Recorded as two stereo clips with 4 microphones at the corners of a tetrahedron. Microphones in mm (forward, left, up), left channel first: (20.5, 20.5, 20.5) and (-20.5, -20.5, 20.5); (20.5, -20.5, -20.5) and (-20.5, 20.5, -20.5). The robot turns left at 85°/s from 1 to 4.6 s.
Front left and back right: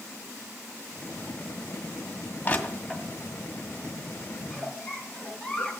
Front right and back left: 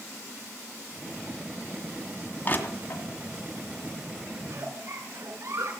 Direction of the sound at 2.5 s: Straight ahead.